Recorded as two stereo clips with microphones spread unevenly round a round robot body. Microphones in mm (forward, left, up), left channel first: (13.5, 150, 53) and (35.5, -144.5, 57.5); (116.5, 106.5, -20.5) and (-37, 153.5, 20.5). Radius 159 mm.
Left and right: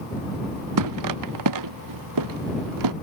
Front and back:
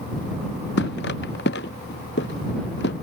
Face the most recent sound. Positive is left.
turn(degrees=-65)